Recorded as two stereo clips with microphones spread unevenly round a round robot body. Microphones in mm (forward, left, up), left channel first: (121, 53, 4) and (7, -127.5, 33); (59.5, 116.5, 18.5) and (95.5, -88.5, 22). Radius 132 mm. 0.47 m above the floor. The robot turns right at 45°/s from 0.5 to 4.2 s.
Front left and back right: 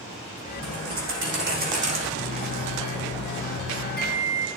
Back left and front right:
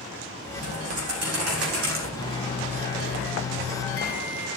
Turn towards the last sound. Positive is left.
turn(degrees=120)